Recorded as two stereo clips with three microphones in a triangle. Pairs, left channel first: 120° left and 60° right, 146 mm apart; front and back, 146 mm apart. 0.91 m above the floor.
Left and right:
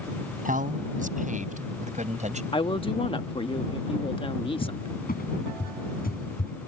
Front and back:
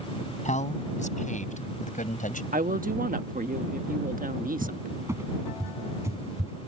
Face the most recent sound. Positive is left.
turn(degrees=110)